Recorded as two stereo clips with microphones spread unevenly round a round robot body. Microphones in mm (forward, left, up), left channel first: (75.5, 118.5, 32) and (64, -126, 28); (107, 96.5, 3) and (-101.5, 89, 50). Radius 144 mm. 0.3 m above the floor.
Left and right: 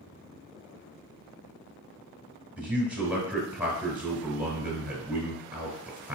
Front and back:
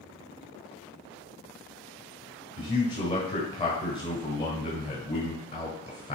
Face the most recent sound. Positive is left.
turn(degrees=-15)